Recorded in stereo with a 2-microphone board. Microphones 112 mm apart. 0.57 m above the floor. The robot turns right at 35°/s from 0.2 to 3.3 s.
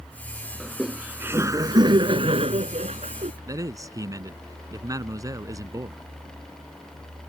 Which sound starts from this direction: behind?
Laughter, at 0.6 s.